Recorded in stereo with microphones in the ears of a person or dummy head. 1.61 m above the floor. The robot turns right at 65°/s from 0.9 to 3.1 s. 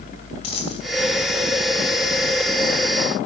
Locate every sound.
0.4 s a dropped coin: 35° left (ahead or behind), 5 m